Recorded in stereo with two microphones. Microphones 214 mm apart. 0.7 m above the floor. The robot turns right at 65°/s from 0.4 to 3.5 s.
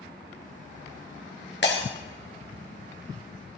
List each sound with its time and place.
1.6 s breaking glass: 55° left (ahead or behind), 2.5 m; by 1.9 s 70° left (ahead or behind), 2.5 m